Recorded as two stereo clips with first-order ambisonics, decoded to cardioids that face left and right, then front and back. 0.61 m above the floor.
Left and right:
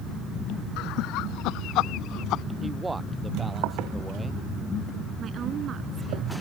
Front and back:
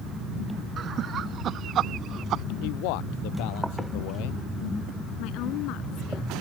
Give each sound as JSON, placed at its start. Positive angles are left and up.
{"t": 0.8, "sound": "laughter", "azimuth_deg": 120}
{"t": 2.6, "sound": "a man speaking", "azimuth_deg": -10}
{"t": 5.2, "sound": "a woman speaking", "azimuth_deg": -30}